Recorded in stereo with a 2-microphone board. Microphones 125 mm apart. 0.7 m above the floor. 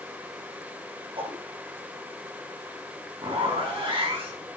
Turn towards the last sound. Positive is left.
turn(degrees=-45)  # may be behind; listen again after turning